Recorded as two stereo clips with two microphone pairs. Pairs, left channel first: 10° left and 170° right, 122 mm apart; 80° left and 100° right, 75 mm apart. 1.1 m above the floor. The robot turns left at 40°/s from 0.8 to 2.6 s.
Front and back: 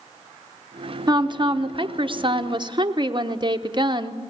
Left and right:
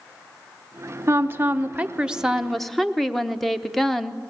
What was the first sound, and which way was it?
A woman speaking, 130° right.